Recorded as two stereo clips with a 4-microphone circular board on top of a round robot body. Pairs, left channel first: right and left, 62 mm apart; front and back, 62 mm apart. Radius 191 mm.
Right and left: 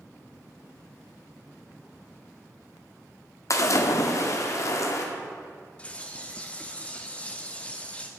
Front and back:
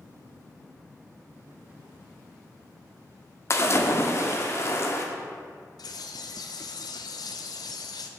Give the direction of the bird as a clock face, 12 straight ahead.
1 o'clock.